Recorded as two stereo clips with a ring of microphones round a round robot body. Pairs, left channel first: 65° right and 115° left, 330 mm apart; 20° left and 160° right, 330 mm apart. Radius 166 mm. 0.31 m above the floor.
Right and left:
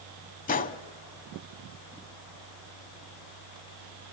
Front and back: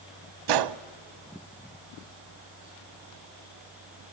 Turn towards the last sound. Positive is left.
turn(degrees=-135)